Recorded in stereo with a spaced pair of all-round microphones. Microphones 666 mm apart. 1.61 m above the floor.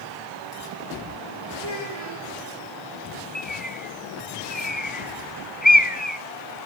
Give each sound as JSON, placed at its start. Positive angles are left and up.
{"t": 1.6, "sound": "a child speaking", "side_deg": -60, "distance_m": 4.5}
{"t": 3.4, "sound": "a bird", "side_deg": 15, "distance_m": 0.9}